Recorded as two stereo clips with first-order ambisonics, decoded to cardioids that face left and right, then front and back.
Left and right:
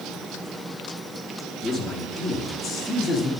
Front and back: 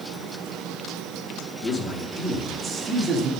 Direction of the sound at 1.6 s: 15° right.